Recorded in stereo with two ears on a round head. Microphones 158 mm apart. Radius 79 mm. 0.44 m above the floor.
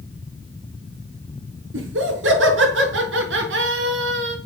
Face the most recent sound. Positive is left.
turn(degrees=-75)  # may be behind; listen again after turning